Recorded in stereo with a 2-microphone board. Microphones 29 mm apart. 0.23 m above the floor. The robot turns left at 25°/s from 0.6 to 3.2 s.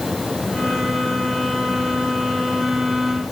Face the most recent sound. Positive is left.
No sound to turn to.